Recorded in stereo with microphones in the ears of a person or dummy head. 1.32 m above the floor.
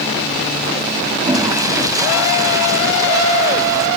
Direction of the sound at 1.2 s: 20° right (ahead or behind).